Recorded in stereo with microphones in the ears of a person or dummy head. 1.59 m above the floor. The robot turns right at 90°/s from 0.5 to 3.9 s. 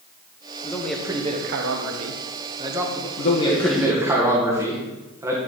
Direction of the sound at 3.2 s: 130° left.